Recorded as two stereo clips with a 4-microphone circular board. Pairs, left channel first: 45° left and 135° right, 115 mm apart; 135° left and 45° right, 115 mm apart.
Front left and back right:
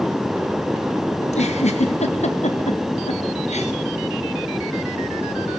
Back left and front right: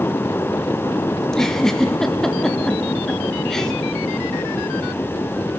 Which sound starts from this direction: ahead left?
A giggle, at 1.2 s.